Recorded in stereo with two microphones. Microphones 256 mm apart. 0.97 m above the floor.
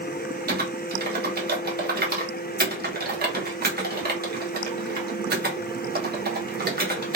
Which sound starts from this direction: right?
Typing on a keyboard, at 0.5 s.